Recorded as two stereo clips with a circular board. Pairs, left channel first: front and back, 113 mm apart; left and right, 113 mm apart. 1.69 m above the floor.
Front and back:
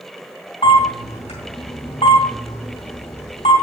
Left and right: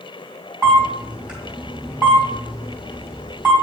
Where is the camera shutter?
10° right, 2.5 m.